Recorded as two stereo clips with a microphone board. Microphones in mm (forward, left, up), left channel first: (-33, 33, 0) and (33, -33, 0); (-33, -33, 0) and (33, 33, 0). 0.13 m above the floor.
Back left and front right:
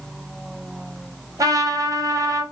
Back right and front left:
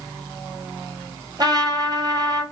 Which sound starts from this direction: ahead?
A trumpet, at 1.4 s.